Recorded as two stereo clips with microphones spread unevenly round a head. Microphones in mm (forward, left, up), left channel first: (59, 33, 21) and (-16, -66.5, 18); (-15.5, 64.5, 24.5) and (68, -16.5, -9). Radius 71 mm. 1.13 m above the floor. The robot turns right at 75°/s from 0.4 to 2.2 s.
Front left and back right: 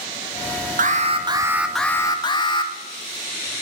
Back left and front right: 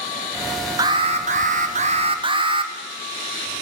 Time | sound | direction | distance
0.8 | an alarm | 110° right | 1.7 m